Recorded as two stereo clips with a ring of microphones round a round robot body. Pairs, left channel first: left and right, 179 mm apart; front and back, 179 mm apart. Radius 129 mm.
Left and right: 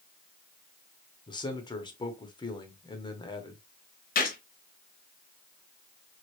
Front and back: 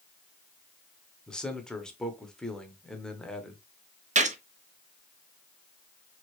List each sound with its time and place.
1.3 s a man speaking: 80° left, 0.9 m
4.2 s a gunshot: 135° left, 0.8 m